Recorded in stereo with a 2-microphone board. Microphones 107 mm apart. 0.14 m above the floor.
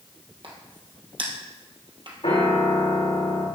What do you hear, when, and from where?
0.4 s a crack: 50° right (ahead or behind), 2 m
2.2 s a piano: 65° left (ahead or behind), 5 m